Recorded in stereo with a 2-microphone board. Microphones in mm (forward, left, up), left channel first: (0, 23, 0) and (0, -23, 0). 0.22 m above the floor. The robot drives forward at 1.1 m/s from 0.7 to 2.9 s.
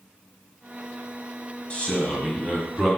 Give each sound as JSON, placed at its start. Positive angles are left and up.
{"t": 1.7, "sound": "a man speaking", "side_deg": 25, "distance_m": 1.5}